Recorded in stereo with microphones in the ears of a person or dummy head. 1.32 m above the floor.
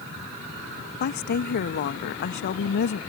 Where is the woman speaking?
50° left (ahead or behind).